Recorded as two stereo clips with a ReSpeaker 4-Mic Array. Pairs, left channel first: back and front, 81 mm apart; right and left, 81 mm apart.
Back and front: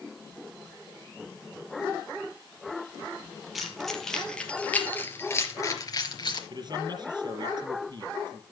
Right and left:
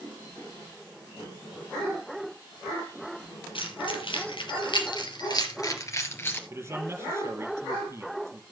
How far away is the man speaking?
About 4 m.